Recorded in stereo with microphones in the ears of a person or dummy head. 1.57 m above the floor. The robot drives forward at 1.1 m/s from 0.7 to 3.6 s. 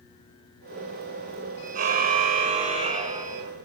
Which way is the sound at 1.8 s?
50° right (ahead or behind).